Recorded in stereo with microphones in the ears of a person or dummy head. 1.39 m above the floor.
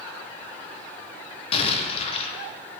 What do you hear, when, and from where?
1.5 s an explosion: 30° left (ahead or behind), 0.9 m